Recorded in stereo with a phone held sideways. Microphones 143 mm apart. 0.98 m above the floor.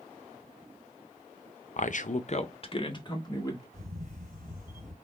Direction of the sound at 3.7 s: 65° right (ahead or behind).